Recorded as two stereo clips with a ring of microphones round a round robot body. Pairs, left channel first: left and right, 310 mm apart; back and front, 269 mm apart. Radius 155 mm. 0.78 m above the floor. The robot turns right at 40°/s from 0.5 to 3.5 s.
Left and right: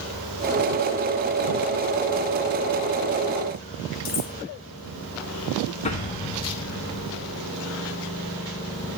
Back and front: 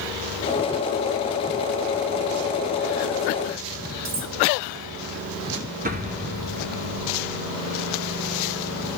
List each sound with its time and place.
4.0 s cutlery clinking: 25° left, 1.9 m
5.8 s an explosion: 35° left, 1.2 m